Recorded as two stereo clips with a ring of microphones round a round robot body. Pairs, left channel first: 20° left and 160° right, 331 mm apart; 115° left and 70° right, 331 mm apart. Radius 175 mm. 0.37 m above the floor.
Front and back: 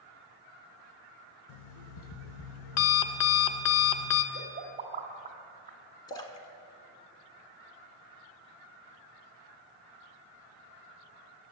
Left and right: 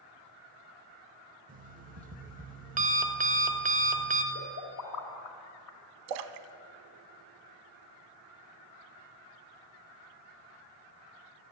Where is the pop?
135° left, 1.8 m.